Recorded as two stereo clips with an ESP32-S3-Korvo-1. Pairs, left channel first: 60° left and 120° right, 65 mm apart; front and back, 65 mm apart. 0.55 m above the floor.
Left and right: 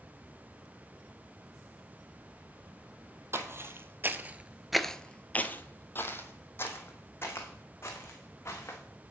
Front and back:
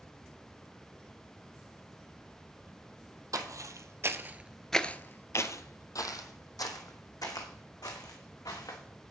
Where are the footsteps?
165° right, 1.1 m; by 8.8 s 10° left, 3 m.